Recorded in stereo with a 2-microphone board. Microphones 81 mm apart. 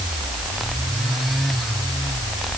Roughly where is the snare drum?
No snare drum in this recording.